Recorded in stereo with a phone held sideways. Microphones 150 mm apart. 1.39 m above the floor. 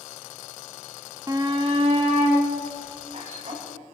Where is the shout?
20° right (ahead or behind), 0.7 m; by 3.6 s 50° right (ahead or behind), 4.5 m.